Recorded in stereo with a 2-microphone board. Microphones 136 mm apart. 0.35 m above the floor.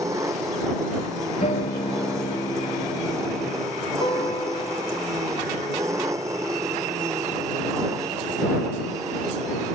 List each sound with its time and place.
0.0 s an engine running: 20° right (ahead or behind)
1.4 s a guitar: 50° left (ahead or behind)
4.0 s a guitar: 35° left (ahead or behind)